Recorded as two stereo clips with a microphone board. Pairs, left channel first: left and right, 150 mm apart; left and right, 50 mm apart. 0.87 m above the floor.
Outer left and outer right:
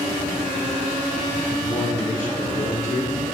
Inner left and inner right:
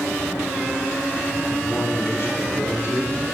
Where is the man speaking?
60° left (ahead or behind), 4 m; by 3.2 s 75° left (ahead or behind), 2.5 m.